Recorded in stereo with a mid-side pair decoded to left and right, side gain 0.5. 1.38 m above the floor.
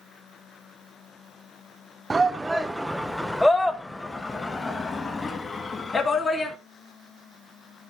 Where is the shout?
20° right, 1.1 m; by 6.5 s 35° left, 3 m.